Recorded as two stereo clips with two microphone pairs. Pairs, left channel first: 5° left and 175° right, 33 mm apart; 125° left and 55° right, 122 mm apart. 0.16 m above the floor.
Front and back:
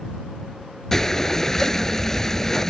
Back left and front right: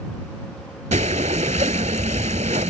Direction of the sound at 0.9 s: 70° right.